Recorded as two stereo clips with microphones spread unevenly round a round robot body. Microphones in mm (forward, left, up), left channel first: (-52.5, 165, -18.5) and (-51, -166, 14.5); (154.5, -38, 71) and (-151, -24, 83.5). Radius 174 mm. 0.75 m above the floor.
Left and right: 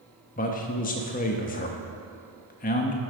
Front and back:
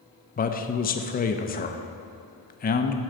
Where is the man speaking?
45° left, 0.6 m.